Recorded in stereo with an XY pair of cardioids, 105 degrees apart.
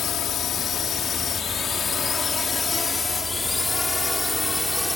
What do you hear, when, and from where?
0.0 s a drone: 65° left; by 5.0 s 10° left